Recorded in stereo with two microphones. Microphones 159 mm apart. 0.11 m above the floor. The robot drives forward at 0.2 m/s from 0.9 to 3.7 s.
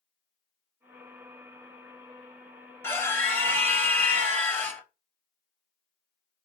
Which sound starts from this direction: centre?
A scream, at 2.8 s.